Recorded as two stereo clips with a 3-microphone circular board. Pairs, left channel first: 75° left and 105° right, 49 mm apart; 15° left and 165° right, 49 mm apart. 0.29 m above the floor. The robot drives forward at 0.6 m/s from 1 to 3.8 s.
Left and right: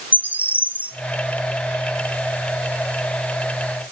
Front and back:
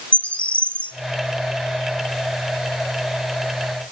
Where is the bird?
45° right, 1.2 m.